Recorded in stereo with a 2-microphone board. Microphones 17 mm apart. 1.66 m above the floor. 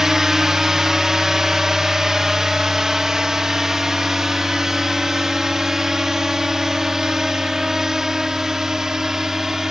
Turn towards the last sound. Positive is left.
turn(degrees=-30)  # may be behind; listen again after turning